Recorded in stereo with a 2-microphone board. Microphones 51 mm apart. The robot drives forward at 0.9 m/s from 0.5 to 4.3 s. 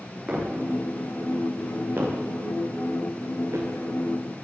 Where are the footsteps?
25° right (ahead or behind), 8.5 m; by 3.7 s 65° right (ahead or behind), 5 m.